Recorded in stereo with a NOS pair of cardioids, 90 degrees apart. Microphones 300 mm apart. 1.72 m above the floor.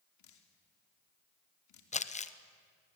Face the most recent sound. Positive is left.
turn(degrees=20)